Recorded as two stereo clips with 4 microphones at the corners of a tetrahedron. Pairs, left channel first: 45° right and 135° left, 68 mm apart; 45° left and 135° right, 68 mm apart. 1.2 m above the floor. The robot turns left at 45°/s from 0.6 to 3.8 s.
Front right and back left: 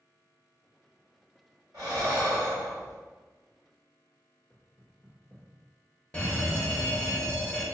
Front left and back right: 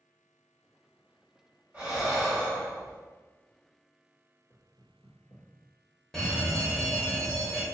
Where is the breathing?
165° left, 1.8 m; by 3.0 s 110° left, 1.8 m.